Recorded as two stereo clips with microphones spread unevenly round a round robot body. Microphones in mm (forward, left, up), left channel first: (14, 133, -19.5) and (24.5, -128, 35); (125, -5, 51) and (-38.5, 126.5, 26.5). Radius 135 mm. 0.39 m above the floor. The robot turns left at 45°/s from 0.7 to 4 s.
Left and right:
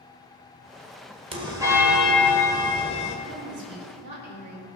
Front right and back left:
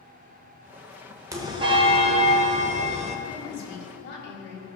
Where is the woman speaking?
45° right, 3 m; by 4.7 s 80° right, 3 m.